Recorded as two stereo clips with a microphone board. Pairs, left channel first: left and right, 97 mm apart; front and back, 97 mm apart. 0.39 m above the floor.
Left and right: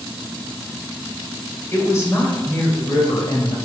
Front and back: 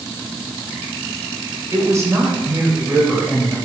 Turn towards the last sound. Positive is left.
turn(degrees=100)